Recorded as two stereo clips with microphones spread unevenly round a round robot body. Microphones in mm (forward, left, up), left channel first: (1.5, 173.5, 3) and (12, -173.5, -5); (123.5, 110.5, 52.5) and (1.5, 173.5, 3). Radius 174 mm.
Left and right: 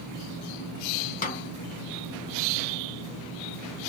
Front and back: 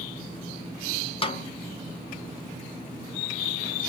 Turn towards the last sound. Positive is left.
turn(degrees=30)